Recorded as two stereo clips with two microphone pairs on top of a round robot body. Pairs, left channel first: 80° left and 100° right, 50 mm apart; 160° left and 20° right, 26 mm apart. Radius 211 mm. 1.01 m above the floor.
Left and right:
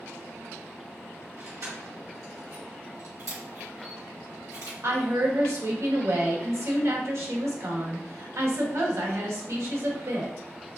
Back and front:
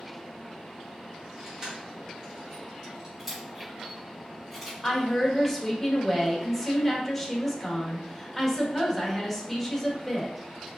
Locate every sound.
1.4 s keys jangling: 90° right, 1.9 m
3.2 s a camera shutter: 95° right, 2.5 m
4.8 s a woman speaking: 115° right, 1.8 m